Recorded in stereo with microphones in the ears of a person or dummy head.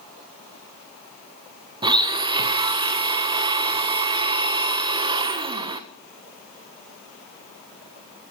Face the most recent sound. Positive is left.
turn(degrees=-30)  # may be behind; listen again after turning